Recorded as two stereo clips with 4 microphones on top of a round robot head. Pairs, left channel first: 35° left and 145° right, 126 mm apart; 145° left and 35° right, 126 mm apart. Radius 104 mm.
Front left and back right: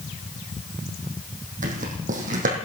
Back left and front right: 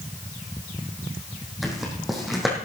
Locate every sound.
1.6 s footsteps: 125° right, 3 m